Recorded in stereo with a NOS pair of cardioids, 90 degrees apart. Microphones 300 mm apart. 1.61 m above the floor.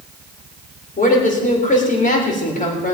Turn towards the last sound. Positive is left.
turn(degrees=30)